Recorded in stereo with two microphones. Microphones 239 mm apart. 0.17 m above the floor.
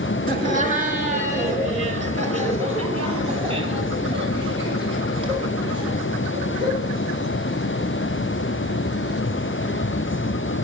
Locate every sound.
0.3 s laughter: 35° right (ahead or behind), 2 m; by 6.9 s 20° right (ahead or behind), 6.5 m